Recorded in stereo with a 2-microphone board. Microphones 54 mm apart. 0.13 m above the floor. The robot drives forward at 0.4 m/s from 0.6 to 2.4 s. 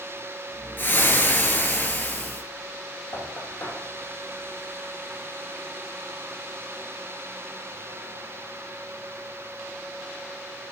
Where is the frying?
45° left (ahead or behind), 1.8 m; by 2.4 s 35° left (ahead or behind), 2 m.